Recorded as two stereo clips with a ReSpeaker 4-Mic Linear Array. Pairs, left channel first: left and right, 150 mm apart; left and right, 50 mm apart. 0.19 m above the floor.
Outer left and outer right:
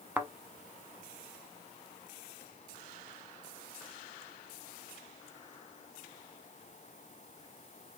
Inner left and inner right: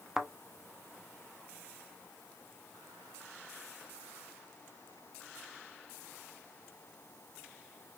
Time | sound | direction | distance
0.2 | a thud | 10° right (ahead or behind) | 0.5 m